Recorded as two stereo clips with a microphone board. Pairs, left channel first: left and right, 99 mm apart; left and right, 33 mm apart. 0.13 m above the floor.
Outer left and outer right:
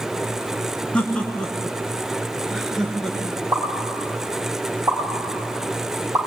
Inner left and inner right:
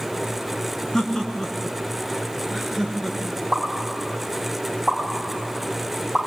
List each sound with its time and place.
0.9 s laughter: 10° left (ahead or behind), 1.7 m; by 3.4 s centre (ahead or behind), 2.5 m
3.5 s a pop: 30° right (ahead or behind), 9.5 m